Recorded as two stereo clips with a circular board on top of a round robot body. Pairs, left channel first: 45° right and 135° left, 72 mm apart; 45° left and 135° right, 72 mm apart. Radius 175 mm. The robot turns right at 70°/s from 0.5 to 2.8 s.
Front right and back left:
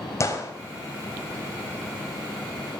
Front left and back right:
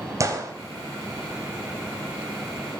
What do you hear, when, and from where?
0.2 s a gunshot: 90° right, 3.5 m